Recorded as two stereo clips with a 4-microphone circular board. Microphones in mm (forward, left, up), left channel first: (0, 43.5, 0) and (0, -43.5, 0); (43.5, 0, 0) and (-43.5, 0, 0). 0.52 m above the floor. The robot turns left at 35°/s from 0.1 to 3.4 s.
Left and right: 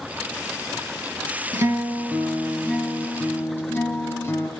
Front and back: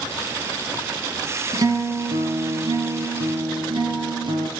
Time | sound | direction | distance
1.5 | a guitar | 140° right | 3 m